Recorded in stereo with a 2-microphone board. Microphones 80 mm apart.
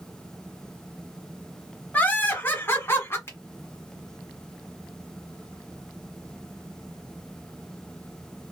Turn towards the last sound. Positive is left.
turn(degrees=35)  # may be behind; listen again after turning